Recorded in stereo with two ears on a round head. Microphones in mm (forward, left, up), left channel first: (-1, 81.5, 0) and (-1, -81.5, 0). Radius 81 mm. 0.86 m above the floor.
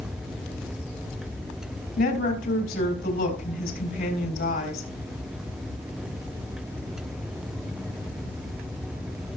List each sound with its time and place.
2.0 s a woman speaking: 60° left (ahead or behind), 3.5 m